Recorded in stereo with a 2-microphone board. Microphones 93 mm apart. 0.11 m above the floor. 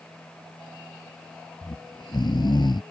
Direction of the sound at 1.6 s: 55° left (ahead or behind).